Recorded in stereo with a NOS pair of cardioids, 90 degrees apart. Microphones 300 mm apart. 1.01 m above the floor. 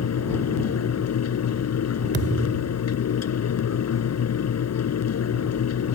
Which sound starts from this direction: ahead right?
A thud, at 2.1 s.